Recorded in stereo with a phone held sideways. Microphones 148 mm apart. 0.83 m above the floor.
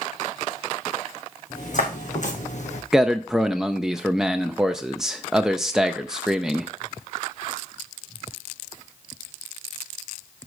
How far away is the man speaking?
About 0.5 m.